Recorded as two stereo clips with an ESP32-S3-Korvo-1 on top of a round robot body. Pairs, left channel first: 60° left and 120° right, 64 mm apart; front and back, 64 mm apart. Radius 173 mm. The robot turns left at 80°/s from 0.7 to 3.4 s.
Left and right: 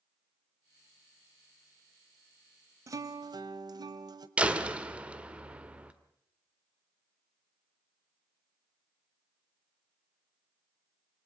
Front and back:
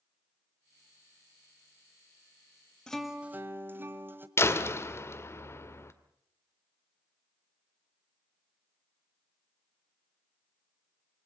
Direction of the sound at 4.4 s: 50° right.